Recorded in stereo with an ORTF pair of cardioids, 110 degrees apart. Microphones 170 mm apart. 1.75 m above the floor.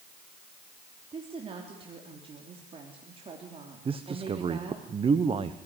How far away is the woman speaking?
About 3.5 m.